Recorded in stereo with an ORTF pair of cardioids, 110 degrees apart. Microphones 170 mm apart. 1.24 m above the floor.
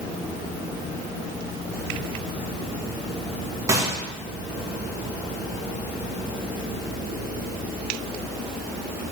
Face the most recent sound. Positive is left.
turn(degrees=-20)